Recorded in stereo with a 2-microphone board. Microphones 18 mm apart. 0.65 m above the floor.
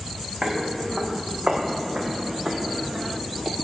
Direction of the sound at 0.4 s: 70° right (ahead or behind).